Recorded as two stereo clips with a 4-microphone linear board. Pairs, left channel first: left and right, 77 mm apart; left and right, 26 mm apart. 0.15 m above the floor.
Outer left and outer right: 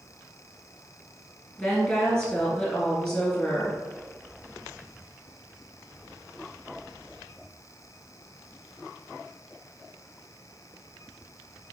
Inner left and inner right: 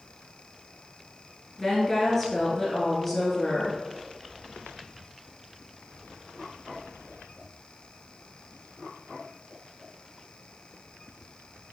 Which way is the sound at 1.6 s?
15° left (ahead or behind).